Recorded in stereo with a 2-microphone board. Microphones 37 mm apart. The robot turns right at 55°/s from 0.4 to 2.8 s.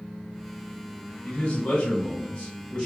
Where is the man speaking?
65° left, 1.3 m; by 2.9 s 150° left, 1.3 m.